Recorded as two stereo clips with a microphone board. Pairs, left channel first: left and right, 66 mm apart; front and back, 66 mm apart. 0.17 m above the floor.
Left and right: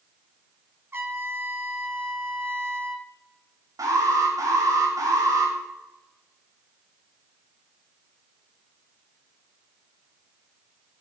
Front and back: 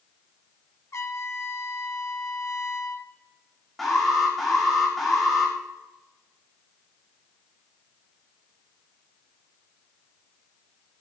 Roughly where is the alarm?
Right.